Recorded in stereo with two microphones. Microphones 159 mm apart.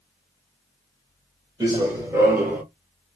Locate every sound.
1.6 s running footsteps: 25° right (ahead or behind), 1.5 m; by 2.6 s 10° right (ahead or behind), 1.5 m